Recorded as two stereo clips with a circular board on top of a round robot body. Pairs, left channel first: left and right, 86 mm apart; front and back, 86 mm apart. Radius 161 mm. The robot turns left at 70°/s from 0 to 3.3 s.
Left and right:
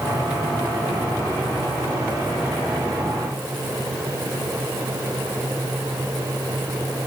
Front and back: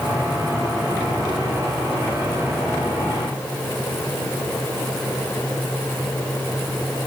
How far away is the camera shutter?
No camera shutter in this recording.